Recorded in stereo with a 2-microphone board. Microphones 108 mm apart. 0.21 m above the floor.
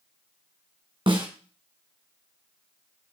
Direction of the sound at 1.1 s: 50° right (ahead or behind).